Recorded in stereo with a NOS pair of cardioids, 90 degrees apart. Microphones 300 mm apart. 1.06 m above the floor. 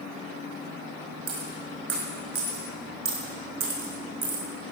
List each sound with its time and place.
1.3 s a dropped coin: 55° right, 5 m